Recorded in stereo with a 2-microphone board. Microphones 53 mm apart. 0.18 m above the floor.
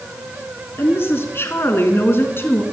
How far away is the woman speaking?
About 2 m.